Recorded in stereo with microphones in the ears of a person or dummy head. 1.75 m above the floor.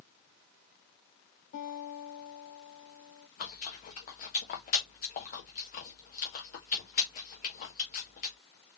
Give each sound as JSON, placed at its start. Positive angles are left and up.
{"t": 1.5, "sound": "a guitar", "side_deg": 55, "distance_m": 2.5}
{"t": 3.4, "sound": "chewing", "side_deg": 45, "distance_m": 1.3}